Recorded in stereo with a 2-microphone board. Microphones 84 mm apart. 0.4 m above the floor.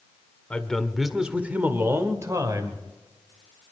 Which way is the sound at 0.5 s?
15° left (ahead or behind).